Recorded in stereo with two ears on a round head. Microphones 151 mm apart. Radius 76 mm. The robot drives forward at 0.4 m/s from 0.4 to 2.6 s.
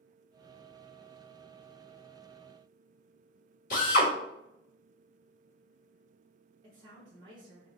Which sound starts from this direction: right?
A woman speaking, at 6.6 s.